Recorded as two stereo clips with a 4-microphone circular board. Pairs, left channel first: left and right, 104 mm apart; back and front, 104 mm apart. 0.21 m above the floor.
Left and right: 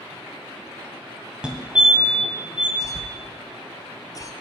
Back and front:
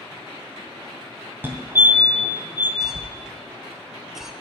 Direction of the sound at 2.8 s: 80° left.